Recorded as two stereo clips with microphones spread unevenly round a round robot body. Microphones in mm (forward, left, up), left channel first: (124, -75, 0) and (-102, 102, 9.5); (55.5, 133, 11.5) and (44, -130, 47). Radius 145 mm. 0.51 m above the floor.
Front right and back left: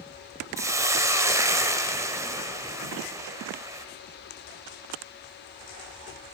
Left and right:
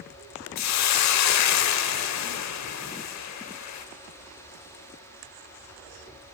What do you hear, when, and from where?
0.6 s a hiss: 60° left, 0.7 m